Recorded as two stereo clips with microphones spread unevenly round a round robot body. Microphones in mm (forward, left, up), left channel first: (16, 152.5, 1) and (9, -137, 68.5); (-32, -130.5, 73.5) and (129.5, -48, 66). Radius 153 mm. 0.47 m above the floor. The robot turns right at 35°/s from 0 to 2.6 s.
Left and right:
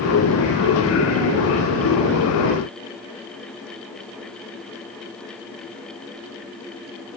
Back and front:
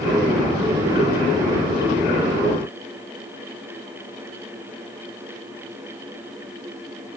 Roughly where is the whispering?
No whispering in this recording.